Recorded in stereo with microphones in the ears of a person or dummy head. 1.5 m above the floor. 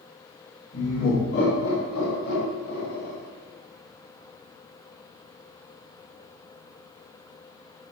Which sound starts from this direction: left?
Laughter, at 0.7 s.